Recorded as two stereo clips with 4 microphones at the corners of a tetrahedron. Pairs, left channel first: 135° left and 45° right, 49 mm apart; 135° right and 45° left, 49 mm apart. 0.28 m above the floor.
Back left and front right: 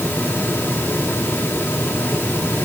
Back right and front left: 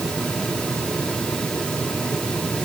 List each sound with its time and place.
Only background noise.